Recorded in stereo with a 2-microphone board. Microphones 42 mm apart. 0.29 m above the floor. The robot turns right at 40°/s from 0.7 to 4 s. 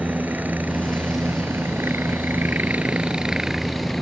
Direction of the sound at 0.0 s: 50° right (ahead or behind).